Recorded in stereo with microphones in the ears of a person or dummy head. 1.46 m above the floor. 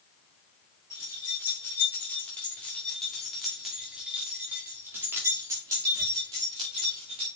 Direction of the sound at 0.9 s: 20° left (ahead or behind).